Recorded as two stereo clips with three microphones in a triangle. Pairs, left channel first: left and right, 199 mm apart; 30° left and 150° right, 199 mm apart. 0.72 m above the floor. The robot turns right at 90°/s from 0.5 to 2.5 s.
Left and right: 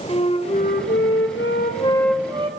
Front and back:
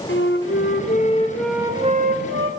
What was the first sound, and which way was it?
A flute, 30° left.